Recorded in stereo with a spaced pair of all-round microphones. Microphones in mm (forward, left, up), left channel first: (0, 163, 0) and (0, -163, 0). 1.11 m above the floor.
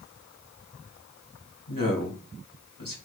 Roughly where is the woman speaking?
Left.